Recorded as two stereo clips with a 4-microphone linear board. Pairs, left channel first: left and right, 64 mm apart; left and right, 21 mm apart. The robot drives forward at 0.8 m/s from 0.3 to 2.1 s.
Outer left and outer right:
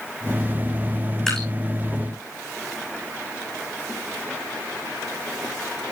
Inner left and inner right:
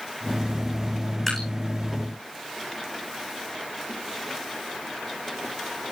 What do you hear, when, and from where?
1.3 s dripping: 5° left (ahead or behind), 7.5 m